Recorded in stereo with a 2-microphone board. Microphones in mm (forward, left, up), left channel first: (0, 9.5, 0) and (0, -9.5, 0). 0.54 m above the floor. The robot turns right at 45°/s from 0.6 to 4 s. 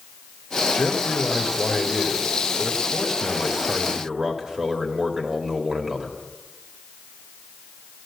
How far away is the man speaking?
About 2.0 m.